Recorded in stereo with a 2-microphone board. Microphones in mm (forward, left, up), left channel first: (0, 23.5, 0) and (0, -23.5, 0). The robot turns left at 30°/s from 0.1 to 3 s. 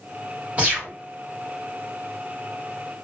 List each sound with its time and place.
0.6 s a gunshot: 30° right (ahead or behind), 1.6 m; by 0.9 s 25° right (ahead or behind), 1.6 m